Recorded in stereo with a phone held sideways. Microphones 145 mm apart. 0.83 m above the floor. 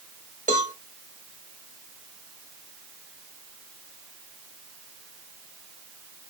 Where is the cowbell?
60° right (ahead or behind), 1.1 m.